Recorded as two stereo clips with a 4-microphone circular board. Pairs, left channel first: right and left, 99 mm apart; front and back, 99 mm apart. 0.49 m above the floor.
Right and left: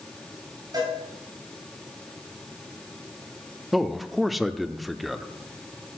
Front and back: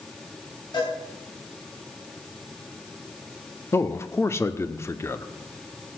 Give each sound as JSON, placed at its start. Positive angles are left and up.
{"t": 0.7, "sound": "a cowbell", "azimuth_deg": 45, "distance_m": 4.0}
{"t": 3.7, "sound": "a man speaking", "azimuth_deg": 0, "distance_m": 0.7}